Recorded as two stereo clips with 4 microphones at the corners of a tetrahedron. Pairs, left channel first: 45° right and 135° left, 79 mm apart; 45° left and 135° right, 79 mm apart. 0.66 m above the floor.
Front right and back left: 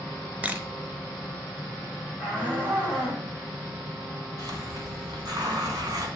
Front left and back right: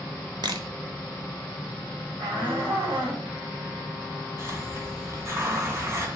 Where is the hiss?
170° left, 1.7 m.